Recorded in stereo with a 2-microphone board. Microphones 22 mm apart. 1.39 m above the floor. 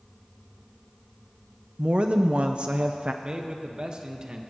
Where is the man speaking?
45° right (ahead or behind), 1.4 m.